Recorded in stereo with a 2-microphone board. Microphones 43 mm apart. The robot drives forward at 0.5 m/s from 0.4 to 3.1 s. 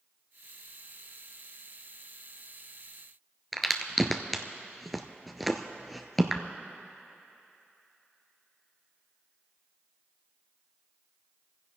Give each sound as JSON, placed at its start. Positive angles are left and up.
{"t": 3.5, "sound": "a crack", "side_deg": 0, "distance_m": 0.9}